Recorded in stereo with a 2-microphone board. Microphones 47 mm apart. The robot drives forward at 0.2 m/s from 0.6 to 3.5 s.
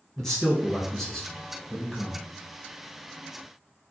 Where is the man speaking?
10° left (ahead or behind), 1.1 m.